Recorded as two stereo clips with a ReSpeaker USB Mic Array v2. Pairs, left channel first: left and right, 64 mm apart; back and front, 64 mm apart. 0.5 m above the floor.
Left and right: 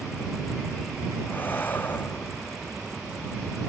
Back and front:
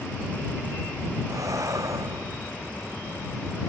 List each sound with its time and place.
1.3 s breathing: 30° left